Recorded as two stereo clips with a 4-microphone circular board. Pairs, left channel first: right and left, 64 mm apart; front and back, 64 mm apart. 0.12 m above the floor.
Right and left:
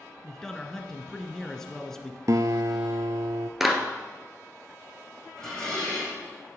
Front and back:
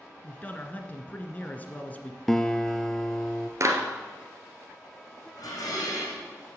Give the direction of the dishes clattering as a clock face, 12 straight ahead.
12 o'clock.